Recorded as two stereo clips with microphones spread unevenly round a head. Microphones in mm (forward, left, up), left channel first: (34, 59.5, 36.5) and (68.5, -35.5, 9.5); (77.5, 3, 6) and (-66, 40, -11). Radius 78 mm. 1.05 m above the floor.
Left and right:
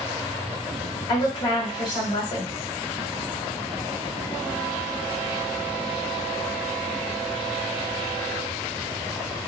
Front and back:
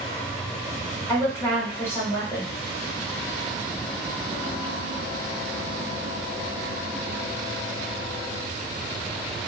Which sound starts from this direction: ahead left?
A woman speaking, at 1.1 s.